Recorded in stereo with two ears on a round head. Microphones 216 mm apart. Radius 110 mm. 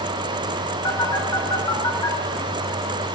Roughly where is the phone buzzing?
Centre.